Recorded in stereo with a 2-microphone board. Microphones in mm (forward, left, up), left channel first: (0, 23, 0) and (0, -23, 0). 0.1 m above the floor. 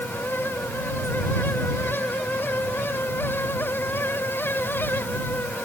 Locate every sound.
Only background noise.